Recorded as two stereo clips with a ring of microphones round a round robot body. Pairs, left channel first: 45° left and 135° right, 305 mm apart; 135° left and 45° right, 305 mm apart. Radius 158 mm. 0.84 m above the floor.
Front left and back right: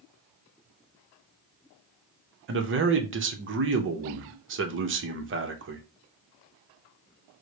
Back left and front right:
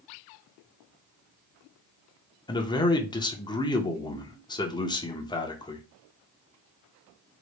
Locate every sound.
2.5 s a man speaking: 155° right, 0.8 m